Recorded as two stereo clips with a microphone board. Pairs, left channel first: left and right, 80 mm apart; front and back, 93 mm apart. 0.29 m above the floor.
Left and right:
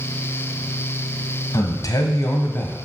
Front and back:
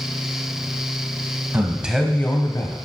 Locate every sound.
1.5 s a man speaking: 120° left, 1.6 m; by 2.8 s 20° left, 1.6 m